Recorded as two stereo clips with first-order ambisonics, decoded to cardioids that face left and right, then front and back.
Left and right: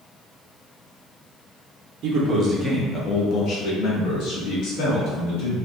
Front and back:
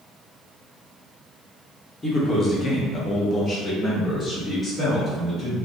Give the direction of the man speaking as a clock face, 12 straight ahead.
2 o'clock.